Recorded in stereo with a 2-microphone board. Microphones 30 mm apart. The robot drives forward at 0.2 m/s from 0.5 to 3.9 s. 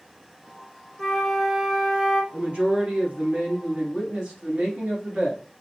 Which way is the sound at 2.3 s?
40° right (ahead or behind).